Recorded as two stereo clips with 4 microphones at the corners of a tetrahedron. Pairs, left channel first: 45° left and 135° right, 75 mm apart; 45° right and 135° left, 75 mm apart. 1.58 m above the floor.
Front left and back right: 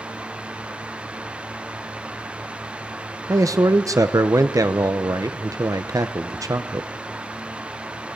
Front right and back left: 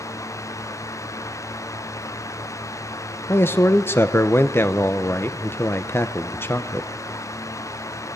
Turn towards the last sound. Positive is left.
turn(degrees=-100)